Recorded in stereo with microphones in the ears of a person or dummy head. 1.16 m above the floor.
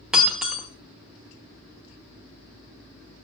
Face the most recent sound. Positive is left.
turn(degrees=0)  # may be behind; listen again after turning